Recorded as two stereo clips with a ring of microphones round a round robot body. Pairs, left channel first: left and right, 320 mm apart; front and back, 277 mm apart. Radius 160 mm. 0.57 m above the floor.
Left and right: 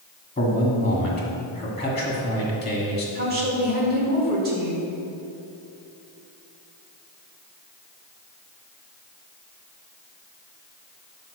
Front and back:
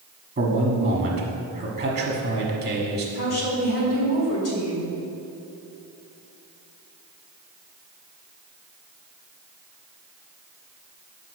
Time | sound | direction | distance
0.4 | a man speaking | 145° left | 1.2 m
3.1 | a woman speaking | 35° right | 1.7 m